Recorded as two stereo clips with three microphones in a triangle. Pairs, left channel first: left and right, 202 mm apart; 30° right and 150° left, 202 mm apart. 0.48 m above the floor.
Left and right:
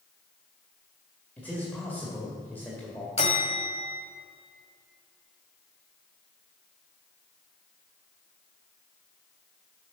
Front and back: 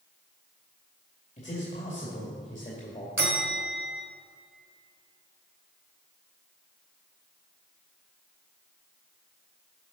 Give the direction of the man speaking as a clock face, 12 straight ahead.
12 o'clock.